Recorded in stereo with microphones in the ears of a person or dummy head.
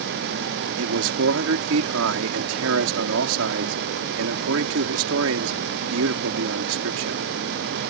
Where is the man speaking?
80° right.